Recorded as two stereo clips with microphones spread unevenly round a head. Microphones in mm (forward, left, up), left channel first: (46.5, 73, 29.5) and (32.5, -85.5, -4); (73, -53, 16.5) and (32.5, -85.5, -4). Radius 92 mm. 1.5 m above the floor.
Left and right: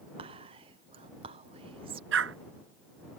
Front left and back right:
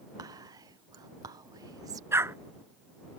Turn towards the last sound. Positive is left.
turn(degrees=-100)